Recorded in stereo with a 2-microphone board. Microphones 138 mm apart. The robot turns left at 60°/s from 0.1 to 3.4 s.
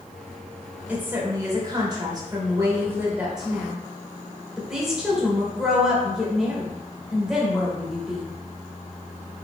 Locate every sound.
0.9 s a woman speaking: 20° right, 0.9 m; by 8.3 s 170° right, 0.9 m